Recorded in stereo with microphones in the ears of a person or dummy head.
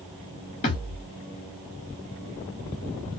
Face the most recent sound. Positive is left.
turn(degrees=20)  # may be behind; listen again after turning